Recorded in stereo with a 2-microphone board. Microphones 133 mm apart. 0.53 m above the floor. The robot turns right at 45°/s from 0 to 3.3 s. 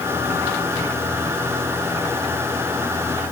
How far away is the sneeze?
No sneeze in this recording.